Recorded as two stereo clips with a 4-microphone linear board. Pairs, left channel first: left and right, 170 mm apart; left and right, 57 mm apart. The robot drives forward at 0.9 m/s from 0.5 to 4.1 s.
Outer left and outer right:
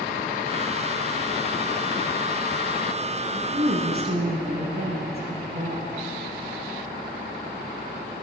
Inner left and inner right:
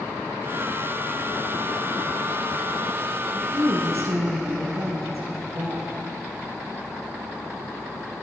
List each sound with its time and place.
3.3 s a woman speaking: 60° right (ahead or behind), 3 m; by 5.9 s 65° right (ahead or behind), 2.5 m